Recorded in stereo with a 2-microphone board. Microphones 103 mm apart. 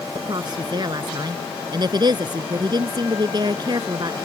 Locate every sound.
0.1 s a woman speaking: 45° right (ahead or behind)